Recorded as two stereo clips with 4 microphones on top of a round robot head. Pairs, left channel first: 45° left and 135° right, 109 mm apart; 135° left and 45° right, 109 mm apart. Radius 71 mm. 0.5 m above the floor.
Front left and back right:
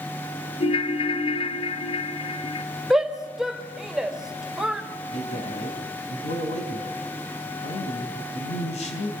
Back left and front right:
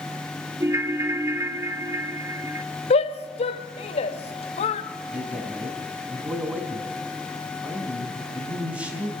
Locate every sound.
0.6 s a ringtone: 20° left, 1.4 m
2.9 s a shout: 140° left, 1.6 m
5.1 s a man speaking: 35° left, 4 m